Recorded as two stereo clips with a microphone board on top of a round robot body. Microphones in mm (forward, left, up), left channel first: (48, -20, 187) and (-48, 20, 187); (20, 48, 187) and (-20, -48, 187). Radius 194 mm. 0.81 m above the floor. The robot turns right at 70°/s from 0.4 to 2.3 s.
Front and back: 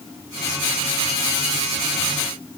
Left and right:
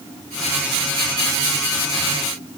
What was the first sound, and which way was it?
Only background noise.